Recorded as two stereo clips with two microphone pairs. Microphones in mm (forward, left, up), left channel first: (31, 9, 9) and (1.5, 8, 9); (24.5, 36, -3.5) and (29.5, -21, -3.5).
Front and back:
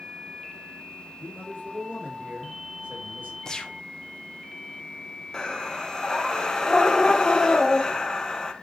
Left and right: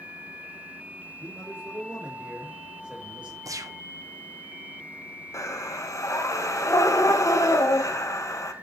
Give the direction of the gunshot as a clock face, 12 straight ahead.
2 o'clock.